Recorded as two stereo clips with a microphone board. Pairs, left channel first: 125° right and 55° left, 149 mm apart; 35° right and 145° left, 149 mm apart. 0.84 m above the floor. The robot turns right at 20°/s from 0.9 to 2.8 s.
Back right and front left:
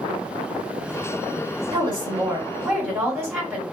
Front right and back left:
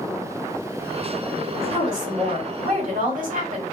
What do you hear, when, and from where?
1.7 s a woman speaking: 115° left, 1.6 m; by 3.6 s 140° left, 1.6 m